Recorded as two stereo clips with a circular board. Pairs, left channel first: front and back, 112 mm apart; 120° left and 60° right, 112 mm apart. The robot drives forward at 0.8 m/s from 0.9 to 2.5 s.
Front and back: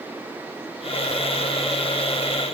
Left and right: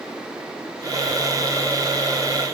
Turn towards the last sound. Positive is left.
No sound to turn to.